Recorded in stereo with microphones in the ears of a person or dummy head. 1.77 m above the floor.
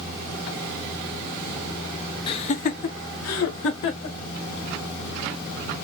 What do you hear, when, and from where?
2.3 s laughter: 25° left (ahead or behind), 0.7 m; by 4.2 s 60° left (ahead or behind), 1.1 m